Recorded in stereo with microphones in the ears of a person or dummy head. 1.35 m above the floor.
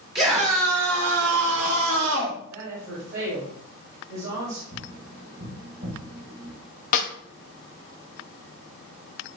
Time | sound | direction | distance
0.1 | a scream | 25° right (ahead or behind) | 1.8 m
2.5 | a woman speaking | 60° right (ahead or behind) | 5 m
4.7 | tapping | 55° right (ahead or behind) | 5.5 m
6.9 | a snare drum | 50° left (ahead or behind) | 1.7 m